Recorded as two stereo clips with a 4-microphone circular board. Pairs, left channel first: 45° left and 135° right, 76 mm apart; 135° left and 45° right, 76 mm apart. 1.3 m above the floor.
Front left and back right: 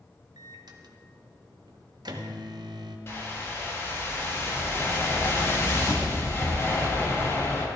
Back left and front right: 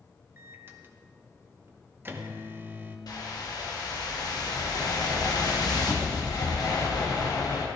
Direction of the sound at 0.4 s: 105° right.